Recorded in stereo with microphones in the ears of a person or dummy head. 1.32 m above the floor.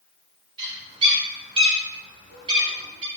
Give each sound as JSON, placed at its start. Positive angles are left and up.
{"t": 0.6, "sound": "a bird", "side_deg": -30, "distance_m": 1.3}